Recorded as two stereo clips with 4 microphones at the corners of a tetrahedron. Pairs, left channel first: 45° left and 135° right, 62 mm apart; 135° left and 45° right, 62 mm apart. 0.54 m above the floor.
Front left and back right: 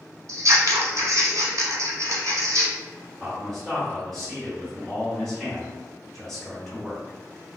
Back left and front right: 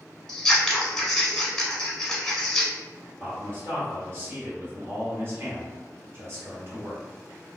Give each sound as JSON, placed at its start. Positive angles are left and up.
{"t": 0.3, "sound": "scissors", "azimuth_deg": -145, "distance_m": 0.7}
{"t": 3.2, "sound": "a man speaking", "azimuth_deg": -40, "distance_m": 1.4}